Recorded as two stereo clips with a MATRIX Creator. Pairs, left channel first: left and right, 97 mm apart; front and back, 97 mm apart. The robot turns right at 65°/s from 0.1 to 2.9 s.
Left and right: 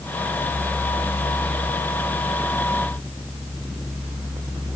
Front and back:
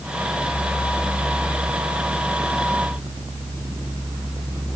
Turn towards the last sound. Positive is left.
No sound to turn to.